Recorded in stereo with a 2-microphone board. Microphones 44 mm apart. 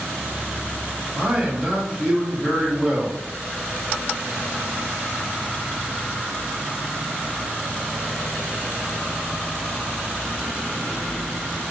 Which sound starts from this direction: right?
A man speaking, at 1.1 s.